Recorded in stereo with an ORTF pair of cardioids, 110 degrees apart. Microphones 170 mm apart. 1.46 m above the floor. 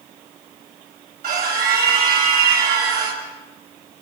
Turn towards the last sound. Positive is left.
turn(degrees=-60)